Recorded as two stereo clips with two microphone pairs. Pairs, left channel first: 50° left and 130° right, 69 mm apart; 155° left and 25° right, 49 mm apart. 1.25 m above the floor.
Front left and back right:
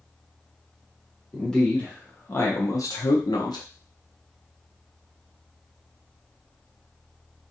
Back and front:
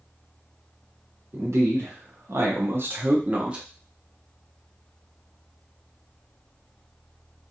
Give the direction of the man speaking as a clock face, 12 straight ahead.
1 o'clock.